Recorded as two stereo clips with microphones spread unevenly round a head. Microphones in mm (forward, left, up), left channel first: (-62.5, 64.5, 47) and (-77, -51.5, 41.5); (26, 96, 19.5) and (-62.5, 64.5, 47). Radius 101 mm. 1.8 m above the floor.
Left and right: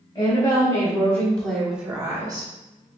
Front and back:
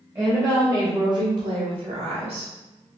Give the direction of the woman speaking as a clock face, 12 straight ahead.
8 o'clock.